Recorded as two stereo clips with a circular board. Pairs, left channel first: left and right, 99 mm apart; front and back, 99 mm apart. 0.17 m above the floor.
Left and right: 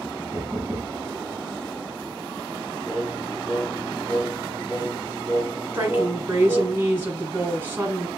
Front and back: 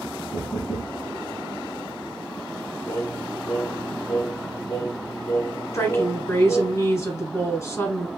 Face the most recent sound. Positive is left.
turn(degrees=-35)